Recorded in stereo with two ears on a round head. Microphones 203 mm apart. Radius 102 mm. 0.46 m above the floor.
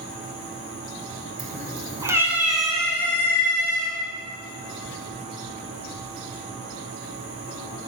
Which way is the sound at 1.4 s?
35° right (ahead or behind).